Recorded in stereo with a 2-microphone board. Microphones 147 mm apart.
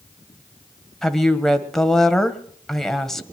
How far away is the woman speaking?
About 1.2 m.